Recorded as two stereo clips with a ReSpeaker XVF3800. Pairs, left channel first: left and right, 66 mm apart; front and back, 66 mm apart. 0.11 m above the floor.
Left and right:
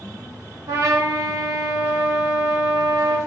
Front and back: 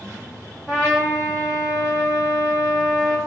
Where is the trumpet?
110° right, 2 m.